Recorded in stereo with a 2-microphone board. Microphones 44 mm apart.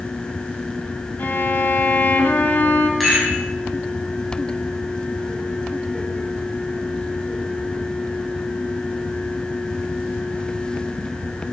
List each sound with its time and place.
1.2 s a violin: 50° left (ahead or behind), 1.4 m
3.0 s a rattle: centre (ahead or behind), 5 m